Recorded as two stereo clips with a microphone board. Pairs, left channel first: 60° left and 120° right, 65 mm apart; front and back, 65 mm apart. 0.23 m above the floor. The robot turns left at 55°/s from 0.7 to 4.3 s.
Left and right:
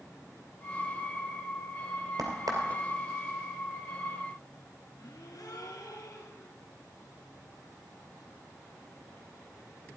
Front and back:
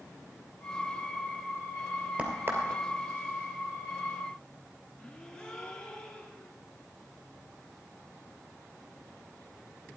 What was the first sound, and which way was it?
A crack, 110° right.